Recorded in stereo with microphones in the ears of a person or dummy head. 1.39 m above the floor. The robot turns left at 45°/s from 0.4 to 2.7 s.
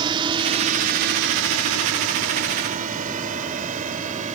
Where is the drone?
25° right (ahead or behind); by 4.4 s 40° right (ahead or behind).